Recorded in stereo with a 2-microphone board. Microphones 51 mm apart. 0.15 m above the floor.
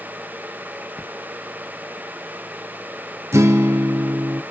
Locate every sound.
1.0 s a splash: 25° left (ahead or behind), 1.3 m
3.3 s a guitar: 70° right (ahead or behind), 1.0 m